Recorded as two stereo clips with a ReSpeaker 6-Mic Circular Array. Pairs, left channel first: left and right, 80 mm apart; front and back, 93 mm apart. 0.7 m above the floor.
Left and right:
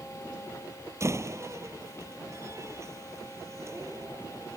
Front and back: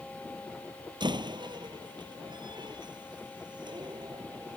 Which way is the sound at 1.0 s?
145° right.